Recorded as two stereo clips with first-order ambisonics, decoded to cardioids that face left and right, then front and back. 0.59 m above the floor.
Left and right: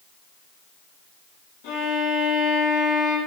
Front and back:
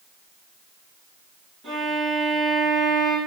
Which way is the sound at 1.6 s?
105° left.